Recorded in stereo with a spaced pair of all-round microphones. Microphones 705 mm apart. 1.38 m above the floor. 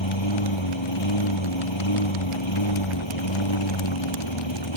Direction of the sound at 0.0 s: 40° left (ahead or behind).